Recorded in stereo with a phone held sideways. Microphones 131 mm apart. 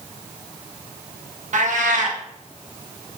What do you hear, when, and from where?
1.5 s a cat meowing: 70° right (ahead or behind), 0.7 m